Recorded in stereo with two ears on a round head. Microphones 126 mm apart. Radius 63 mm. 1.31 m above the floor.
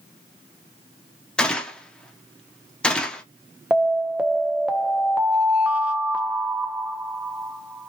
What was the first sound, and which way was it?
A gunshot, 5° left (ahead or behind).